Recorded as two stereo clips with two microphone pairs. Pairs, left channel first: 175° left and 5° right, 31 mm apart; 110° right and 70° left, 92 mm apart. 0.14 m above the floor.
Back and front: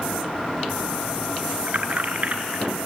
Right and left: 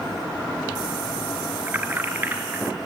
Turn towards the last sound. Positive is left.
turn(degrees=5)